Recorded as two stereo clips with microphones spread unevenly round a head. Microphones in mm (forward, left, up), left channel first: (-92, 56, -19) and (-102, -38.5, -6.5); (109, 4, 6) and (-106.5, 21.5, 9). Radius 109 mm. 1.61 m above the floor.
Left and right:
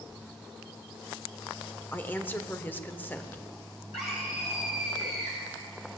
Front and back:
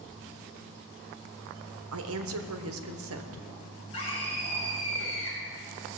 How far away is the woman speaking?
About 1.3 m.